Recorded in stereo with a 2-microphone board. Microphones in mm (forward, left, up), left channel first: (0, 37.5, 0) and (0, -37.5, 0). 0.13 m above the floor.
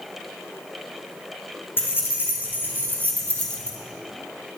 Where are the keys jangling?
30° left (ahead or behind), 4.5 m; by 3.8 s 15° left (ahead or behind), 2 m.